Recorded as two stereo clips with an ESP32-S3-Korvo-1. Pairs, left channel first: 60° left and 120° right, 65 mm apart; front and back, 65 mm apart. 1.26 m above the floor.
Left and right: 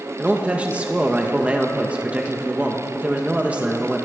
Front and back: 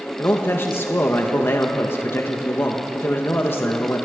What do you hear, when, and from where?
0.2 s a man speaking: 50° right, 1.6 m